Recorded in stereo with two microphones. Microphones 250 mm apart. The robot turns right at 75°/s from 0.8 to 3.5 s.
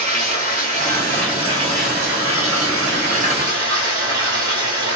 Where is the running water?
140° left, 1.5 m; by 5.0 s 15° right, 1.5 m.